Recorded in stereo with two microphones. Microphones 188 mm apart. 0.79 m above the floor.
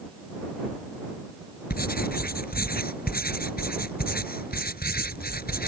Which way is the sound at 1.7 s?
55° left (ahead or behind).